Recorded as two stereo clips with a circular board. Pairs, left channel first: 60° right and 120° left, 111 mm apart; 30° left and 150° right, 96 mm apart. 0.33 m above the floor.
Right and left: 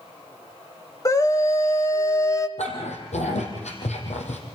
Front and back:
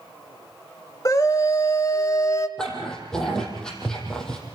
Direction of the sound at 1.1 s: 10° right.